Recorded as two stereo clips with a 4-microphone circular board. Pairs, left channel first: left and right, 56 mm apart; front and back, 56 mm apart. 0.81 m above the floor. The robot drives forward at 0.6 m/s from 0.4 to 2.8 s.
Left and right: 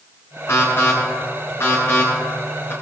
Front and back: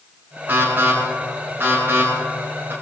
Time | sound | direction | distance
0.5 | an alarm | 125° left | 6.5 m